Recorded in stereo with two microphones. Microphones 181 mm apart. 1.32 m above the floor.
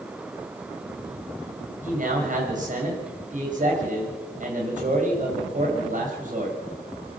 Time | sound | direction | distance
1.8 | a man speaking | 45° right (ahead or behind) | 6.5 m